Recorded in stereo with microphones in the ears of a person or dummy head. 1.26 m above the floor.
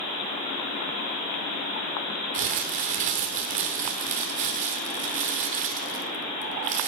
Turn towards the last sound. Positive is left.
turn(degrees=-50)  # may be behind; listen again after turning